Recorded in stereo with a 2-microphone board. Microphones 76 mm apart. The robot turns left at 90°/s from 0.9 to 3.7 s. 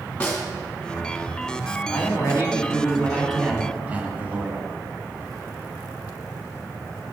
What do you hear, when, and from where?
0.2 s a snare drum: 15° left (ahead or behind), 2 m
1.9 s a man speaking: 130° left, 1.9 m; by 4.7 s 30° right, 1.9 m